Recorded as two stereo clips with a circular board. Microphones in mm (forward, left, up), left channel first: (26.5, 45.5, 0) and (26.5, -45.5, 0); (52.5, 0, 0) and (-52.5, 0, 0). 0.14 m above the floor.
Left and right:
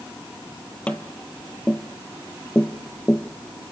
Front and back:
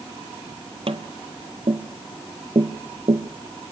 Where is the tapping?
165° left, 1.1 m.